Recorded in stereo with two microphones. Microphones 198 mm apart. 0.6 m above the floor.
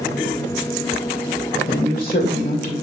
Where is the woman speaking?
45° left (ahead or behind), 1.9 m.